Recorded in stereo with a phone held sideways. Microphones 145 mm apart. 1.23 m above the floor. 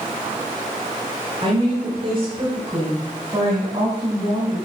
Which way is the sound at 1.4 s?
40° right (ahead or behind).